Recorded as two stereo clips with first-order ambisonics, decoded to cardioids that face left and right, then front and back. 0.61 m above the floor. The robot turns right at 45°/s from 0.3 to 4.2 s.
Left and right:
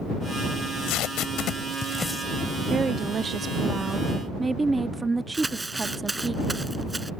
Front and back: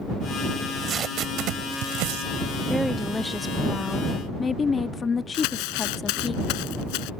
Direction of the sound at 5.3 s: 10° right.